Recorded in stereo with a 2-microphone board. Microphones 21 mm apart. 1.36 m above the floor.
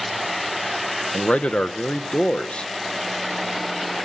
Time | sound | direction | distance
1.1 | a man speaking | 70° left (ahead or behind) | 1.3 m